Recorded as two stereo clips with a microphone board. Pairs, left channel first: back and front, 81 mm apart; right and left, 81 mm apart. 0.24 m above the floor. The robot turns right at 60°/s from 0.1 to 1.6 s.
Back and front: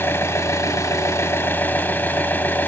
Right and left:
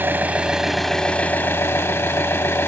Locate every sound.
0.0 s an engine running: 140° left, 1.0 m; by 2.7 s 130° right, 1.0 m